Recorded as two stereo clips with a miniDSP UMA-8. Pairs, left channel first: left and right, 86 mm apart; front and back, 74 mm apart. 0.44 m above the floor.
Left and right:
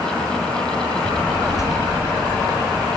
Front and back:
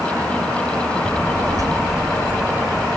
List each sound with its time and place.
1.0 s a child speaking: 130° left, 1.6 m; by 2.9 s 170° left, 1.5 m